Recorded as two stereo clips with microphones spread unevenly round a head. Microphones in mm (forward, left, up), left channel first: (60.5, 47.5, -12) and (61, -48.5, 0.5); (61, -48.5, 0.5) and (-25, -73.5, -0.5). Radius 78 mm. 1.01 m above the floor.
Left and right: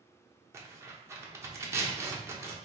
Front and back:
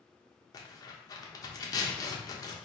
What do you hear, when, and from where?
0.5 s tearing paper: 25° right, 0.9 m